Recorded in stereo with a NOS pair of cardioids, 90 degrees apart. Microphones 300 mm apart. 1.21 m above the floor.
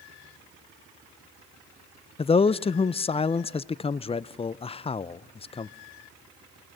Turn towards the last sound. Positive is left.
turn(degrees=20)